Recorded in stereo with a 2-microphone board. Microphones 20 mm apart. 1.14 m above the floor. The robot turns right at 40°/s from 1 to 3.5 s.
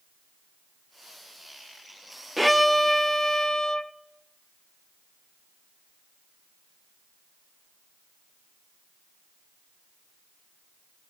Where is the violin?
Straight ahead, 0.6 m; by 3.9 s 45° left, 0.6 m.